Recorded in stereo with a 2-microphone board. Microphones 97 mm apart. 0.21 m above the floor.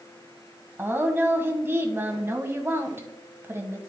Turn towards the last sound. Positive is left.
turn(degrees=-25)  # may be behind; listen again after turning